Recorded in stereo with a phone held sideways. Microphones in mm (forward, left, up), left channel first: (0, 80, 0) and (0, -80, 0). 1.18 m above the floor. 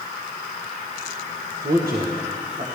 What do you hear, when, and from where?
1.6 s a man speaking: 75° right (ahead or behind), 1.3 m; by 2.6 s 45° right (ahead or behind), 1.5 m